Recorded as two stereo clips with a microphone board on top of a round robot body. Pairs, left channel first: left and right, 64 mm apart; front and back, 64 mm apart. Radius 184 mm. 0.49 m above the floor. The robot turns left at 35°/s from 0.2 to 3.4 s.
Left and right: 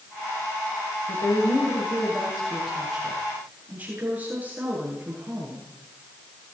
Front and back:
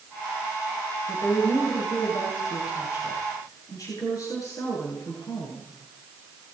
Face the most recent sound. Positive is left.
turn(degrees=-25)